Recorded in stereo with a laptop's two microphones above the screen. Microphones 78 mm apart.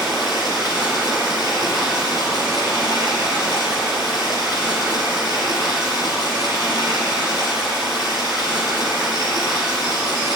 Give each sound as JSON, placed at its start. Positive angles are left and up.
{"t": 0.0, "sound": "running water", "side_deg": -55, "distance_m": 7.0}